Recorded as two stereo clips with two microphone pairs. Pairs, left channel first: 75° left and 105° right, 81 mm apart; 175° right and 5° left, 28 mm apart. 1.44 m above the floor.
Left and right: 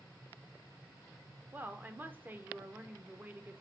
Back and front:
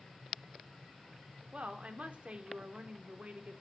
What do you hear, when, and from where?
1.5 s a woman speaking: 40° right, 0.9 m